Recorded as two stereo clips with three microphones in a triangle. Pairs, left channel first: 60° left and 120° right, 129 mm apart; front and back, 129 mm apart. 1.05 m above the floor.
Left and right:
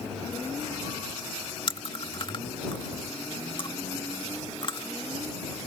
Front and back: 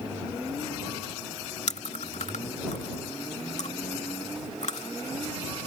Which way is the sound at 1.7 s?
15° left.